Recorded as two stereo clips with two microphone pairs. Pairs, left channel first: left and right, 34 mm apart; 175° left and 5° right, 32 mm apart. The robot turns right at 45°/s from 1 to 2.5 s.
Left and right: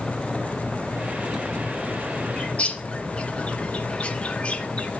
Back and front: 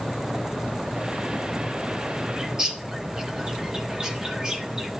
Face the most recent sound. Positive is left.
turn(degrees=55)